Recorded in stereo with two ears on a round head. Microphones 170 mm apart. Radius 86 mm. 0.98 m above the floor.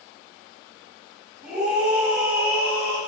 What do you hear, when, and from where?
1.4 s a scream: 5° right (ahead or behind), 3.5 m; by 3.0 s 15° right (ahead or behind), 3 m